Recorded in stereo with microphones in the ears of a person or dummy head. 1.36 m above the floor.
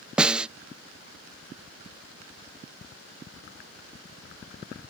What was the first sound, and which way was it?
A snare drum, 15° right (ahead or behind).